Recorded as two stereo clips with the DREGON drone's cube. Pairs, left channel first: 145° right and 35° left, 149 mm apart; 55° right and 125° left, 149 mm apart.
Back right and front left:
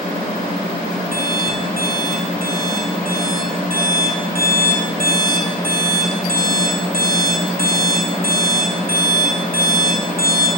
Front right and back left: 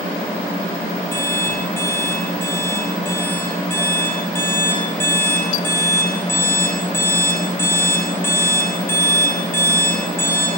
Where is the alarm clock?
20° left, 10 m.